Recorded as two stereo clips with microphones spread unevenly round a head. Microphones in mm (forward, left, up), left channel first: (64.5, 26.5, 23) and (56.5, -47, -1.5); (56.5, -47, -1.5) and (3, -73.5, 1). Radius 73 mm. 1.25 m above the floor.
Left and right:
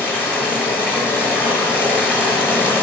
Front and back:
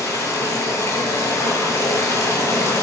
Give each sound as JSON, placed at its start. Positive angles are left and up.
{"t": 0.0, "sound": "running water", "azimuth_deg": 35, "distance_m": 1.9}